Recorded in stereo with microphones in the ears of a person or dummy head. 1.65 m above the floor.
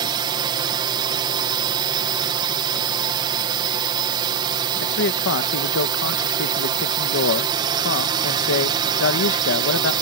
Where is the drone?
25° right (ahead or behind).